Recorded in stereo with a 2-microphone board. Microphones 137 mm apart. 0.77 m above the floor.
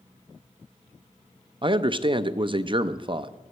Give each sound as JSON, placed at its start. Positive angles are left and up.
{"t": 1.6, "sound": "a man speaking", "side_deg": -35, "distance_m": 0.5}